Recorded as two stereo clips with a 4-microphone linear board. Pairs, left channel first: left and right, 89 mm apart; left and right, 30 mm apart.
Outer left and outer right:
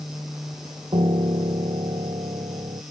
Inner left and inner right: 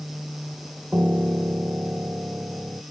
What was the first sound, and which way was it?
A piano, 80° right.